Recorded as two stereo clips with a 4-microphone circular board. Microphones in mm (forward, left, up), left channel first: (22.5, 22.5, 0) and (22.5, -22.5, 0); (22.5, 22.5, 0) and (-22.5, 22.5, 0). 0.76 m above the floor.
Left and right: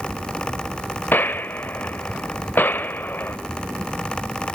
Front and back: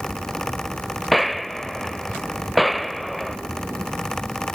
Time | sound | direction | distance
1.1 | a gunshot | 85° left | 0.6 m